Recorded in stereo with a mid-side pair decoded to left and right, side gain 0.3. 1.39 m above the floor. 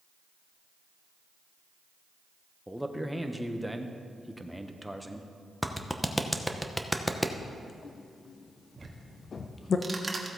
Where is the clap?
5° left, 0.9 m.